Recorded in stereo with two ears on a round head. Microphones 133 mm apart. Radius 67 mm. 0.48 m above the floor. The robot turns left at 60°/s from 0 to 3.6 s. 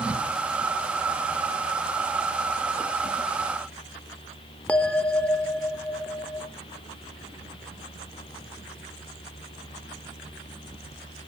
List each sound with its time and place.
4.7 s a bell: 10° left (ahead or behind), 0.5 m